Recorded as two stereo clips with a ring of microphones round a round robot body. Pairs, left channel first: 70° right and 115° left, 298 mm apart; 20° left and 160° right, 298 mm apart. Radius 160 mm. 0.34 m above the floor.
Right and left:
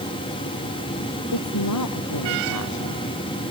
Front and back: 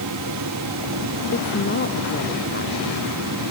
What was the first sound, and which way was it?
A woman speaking, 35° right.